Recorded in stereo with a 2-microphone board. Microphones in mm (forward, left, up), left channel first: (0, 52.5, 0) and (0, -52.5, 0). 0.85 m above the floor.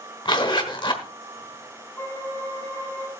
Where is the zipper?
50° left (ahead or behind), 1.4 m.